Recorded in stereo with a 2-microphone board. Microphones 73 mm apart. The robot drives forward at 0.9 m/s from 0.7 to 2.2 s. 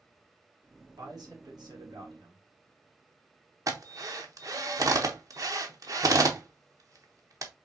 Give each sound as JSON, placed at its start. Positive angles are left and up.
{"t": 1.0, "sound": "a man speaking", "side_deg": -65, "distance_m": 2.0}
{"t": 3.7, "sound": "a drill", "side_deg": -50, "distance_m": 0.8}